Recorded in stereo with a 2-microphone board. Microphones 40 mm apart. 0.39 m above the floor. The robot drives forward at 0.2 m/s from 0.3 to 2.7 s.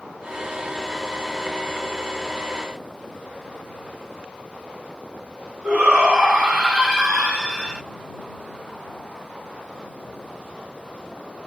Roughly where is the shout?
Left.